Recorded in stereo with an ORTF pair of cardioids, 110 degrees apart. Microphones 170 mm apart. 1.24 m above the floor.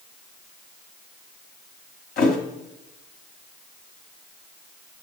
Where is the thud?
60° left, 3 m.